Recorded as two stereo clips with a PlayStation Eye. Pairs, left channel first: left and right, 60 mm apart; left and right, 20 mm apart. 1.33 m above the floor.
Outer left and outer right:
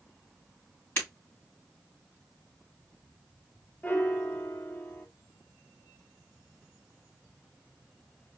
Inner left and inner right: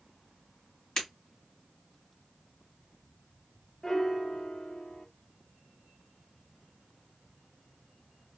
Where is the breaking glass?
35° left (ahead or behind), 3.5 m.